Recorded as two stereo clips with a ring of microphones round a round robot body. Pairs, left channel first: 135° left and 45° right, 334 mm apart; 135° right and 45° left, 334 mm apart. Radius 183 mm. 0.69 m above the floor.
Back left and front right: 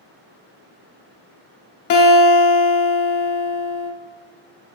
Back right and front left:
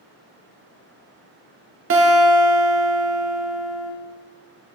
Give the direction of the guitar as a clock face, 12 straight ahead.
9 o'clock.